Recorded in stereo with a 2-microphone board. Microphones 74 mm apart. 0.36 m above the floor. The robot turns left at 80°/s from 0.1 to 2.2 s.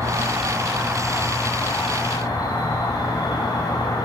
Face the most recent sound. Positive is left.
turn(degrees=105)